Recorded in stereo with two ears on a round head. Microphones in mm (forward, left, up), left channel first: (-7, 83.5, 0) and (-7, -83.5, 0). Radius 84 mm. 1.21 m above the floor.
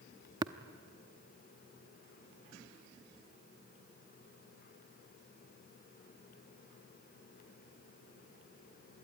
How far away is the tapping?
About 0.7 m.